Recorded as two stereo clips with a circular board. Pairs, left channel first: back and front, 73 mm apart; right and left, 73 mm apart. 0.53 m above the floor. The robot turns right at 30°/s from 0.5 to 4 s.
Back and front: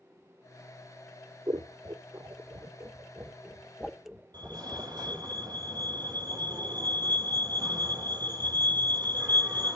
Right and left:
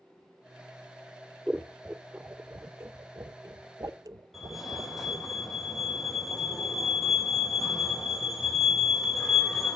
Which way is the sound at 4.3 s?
Straight ahead.